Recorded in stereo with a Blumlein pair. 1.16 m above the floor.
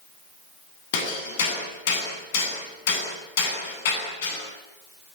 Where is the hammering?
55° left, 10 m.